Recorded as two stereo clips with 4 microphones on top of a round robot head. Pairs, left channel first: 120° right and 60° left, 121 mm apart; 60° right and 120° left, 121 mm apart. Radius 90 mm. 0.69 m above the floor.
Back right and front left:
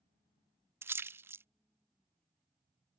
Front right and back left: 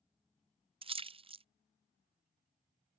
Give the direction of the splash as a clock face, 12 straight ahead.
8 o'clock.